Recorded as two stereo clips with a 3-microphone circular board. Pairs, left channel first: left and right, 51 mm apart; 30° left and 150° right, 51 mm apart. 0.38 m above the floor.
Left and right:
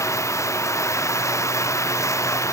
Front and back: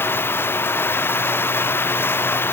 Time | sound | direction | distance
0.0 | running water | 75° left | ?